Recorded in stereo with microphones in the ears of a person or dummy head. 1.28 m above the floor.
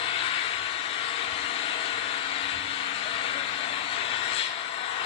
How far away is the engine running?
About 0.9 m.